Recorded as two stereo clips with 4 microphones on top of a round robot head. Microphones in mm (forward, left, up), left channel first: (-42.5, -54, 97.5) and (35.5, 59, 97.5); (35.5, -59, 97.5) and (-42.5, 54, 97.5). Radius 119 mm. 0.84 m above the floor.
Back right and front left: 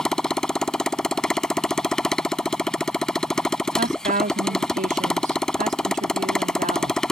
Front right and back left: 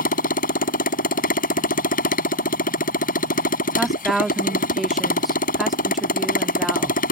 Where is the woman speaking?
35° left.